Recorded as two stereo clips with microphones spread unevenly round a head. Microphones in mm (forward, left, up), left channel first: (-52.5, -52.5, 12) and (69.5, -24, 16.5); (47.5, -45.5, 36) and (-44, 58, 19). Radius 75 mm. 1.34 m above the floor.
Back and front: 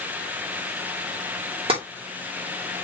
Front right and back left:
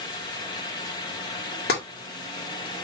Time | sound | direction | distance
1.7 | tapping | 30° right | 3 m